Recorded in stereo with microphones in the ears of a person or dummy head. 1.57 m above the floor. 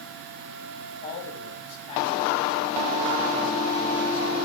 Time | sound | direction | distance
1.0 | a man speaking | 30° left (ahead or behind) | 7 m